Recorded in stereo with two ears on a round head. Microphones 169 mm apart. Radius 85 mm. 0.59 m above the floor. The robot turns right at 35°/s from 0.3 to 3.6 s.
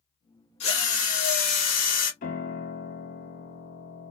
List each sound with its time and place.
0.6 s a drill: 45° left, 1.4 m; by 2.1 s 95° left, 1.4 m
2.2 s a piano: 55° left, 1.0 m; by 4.1 s 105° left, 1.0 m